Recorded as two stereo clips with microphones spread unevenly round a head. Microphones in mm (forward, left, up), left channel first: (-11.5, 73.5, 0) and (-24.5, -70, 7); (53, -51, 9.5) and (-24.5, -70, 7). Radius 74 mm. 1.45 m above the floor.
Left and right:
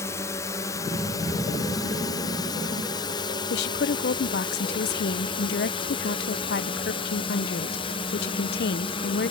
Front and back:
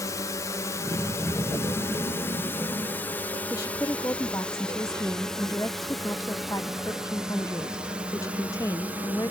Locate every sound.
0.0 s a drone: 25° left; by 9.3 s 125° left
3.5 s a woman speaking: 80° left